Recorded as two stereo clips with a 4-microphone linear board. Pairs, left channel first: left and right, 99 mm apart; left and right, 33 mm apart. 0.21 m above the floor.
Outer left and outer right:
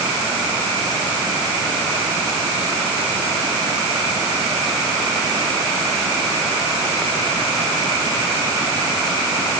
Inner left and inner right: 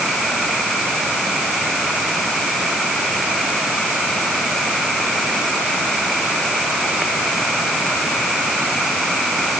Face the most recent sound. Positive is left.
No sound to turn to.